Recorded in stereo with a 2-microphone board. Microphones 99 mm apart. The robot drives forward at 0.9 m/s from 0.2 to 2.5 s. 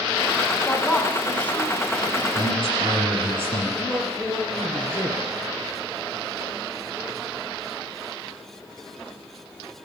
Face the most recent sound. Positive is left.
turn(degrees=5)  # may be behind; listen again after turning